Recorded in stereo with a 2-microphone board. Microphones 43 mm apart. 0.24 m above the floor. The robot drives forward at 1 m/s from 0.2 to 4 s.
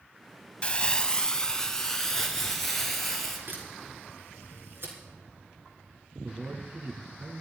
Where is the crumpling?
30° left (ahead or behind), 0.8 m; by 3.4 s 5° left (ahead or behind), 3 m.